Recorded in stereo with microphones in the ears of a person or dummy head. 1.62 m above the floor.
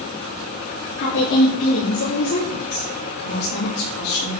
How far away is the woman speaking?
About 4.5 m.